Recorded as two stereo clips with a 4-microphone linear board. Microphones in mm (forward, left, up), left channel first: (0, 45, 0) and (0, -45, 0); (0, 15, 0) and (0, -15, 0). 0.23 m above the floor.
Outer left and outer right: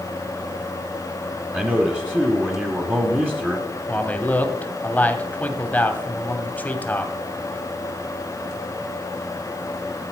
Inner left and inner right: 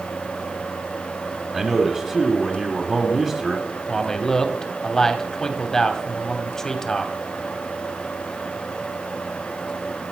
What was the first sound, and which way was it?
A man speaking, 20° right (ahead or behind).